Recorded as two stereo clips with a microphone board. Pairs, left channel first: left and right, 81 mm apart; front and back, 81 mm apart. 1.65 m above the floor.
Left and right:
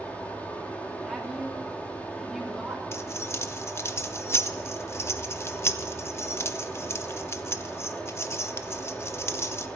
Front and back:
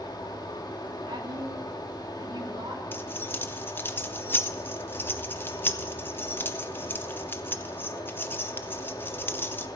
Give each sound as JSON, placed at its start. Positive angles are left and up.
{"t": 0.0, "sound": "running water", "azimuth_deg": 20, "distance_m": 2.0}
{"t": 1.0, "sound": "a woman speaking", "azimuth_deg": 180, "distance_m": 3.0}
{"t": 2.9, "sound": "keys jangling", "azimuth_deg": 50, "distance_m": 0.8}